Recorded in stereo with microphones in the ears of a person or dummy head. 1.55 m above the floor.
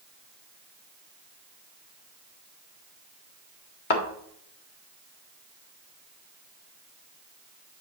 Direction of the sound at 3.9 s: 50° left (ahead or behind).